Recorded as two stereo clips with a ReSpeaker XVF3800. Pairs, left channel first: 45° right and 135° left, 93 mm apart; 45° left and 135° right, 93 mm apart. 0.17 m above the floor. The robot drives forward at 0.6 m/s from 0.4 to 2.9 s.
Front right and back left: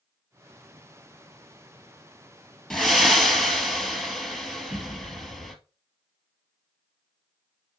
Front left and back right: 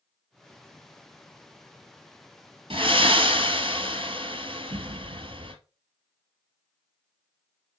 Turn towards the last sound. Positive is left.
turn(degrees=-140)